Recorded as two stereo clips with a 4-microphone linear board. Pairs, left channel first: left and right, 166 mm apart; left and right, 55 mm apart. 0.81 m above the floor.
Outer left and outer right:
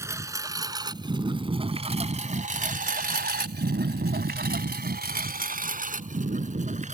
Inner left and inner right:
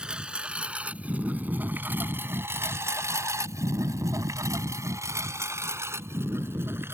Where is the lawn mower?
15° right (ahead or behind); by 7.0 s 45° right (ahead or behind).